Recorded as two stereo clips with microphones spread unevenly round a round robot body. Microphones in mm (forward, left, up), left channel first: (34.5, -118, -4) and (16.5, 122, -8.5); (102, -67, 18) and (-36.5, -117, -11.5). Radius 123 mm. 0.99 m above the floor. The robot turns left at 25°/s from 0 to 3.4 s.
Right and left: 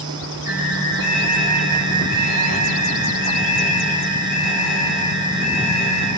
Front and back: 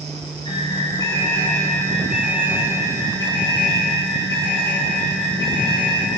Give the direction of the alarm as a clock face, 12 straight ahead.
1 o'clock.